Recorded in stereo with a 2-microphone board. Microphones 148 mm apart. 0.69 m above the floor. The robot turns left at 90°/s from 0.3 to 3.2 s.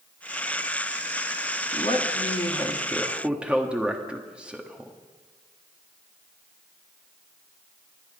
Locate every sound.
1.7 s a man speaking: 125° left, 1.4 m; by 4.9 s 10° right, 1.4 m